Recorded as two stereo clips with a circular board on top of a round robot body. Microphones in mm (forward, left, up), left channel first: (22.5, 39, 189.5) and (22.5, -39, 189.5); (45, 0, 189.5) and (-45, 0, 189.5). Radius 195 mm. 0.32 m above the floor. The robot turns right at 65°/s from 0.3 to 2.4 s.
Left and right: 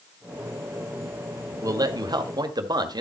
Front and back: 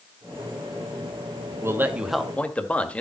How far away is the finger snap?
I don't hear a finger snap.